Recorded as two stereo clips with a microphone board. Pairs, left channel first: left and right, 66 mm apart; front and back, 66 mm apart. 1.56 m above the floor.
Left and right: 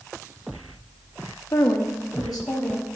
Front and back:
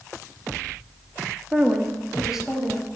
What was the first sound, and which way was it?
A woman speaking, 115° left.